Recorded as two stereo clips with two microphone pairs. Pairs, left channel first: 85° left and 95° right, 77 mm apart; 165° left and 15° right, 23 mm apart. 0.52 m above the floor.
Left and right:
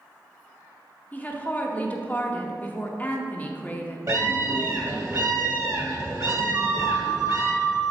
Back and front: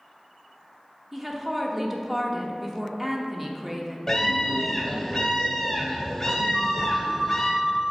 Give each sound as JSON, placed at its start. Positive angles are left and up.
{"t": 1.1, "sound": "a woman speaking", "azimuth_deg": 35, "distance_m": 0.7}
{"t": 4.1, "sound": "a scream", "azimuth_deg": -125, "distance_m": 1.7}
{"t": 6.5, "sound": "a flute", "azimuth_deg": 0, "distance_m": 1.4}